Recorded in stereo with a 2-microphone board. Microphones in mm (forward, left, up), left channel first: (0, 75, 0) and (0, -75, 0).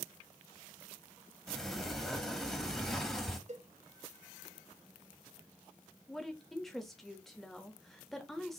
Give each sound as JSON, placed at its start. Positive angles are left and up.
{"t": 1.5, "sound": "a sliding door", "side_deg": 5, "distance_m": 0.8}
{"t": 3.5, "sound": "a cowbell", "side_deg": -50, "distance_m": 0.7}
{"t": 6.1, "sound": "a woman speaking", "side_deg": 0, "distance_m": 1.0}